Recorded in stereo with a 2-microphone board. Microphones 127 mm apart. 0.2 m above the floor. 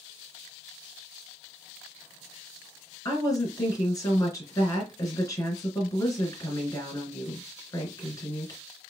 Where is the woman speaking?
25° left (ahead or behind), 3 m.